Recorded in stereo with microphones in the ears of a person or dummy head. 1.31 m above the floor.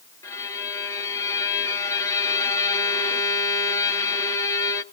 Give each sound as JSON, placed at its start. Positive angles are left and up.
{"t": 0.2, "sound": "a violin", "side_deg": 15, "distance_m": 1.2}